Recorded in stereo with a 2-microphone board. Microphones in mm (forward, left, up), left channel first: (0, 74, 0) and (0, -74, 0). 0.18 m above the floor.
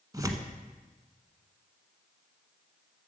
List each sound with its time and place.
0.1 s tearing paper: 25° right (ahead or behind), 1.1 m